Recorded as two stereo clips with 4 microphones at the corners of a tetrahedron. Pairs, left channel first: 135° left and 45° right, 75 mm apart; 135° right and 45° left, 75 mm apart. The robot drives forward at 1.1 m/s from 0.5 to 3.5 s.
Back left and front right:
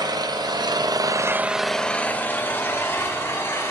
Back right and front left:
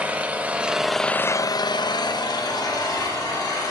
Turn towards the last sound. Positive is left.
turn(degrees=-170)